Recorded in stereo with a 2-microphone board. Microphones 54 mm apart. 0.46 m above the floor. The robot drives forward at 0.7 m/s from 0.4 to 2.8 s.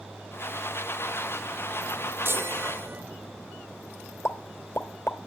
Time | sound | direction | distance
2.2 | a chime | 45° right (ahead or behind) | 1.2 m
4.2 | a pop | 50° left (ahead or behind) | 1.3 m